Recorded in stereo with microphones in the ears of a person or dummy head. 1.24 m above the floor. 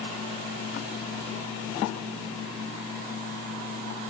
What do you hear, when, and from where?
Only background noise.